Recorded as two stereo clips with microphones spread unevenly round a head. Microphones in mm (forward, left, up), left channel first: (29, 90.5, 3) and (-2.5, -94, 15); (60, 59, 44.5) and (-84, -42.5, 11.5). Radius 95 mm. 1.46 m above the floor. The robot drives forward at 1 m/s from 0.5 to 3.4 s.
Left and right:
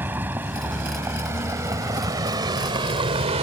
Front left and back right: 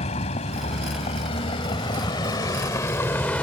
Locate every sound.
0.0 s a vehicle: 20° right; by 3.4 s 45° right